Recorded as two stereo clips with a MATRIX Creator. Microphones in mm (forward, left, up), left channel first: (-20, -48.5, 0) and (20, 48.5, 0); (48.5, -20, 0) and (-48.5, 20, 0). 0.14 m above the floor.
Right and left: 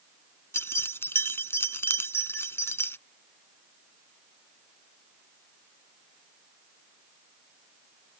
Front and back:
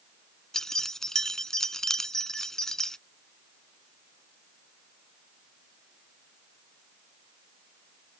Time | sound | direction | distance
0.5 | keys jangling | 100° right | ?